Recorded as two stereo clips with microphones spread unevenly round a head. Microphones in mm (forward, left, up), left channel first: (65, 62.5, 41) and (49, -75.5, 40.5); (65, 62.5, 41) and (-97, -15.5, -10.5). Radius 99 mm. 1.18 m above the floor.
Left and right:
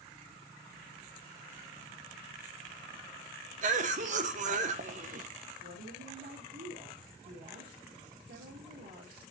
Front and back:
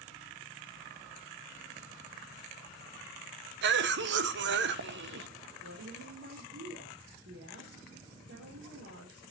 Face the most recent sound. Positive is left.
turn(degrees=-120)